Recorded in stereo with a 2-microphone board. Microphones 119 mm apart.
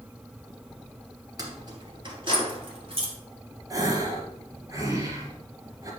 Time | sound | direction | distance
1.4 | keys jangling | 35° right (ahead or behind) | 2.5 m
3.7 | a gasp | 30° right (ahead or behind) | 2.5 m